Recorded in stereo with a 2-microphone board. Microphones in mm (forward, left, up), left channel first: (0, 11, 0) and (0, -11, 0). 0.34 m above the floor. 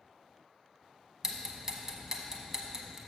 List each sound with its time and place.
1.2 s ticking: 20° right (ahead or behind), 0.9 m